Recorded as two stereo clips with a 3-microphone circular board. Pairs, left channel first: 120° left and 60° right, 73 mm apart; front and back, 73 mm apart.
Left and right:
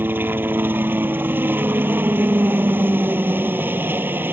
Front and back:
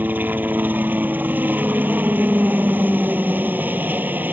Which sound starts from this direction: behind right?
A helicopter, at 0.0 s.